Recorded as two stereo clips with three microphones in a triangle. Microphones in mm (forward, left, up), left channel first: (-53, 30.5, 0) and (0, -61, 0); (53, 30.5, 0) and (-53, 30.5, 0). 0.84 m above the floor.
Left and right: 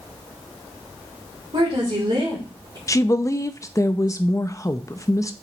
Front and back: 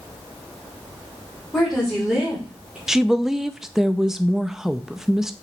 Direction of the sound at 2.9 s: 95° left.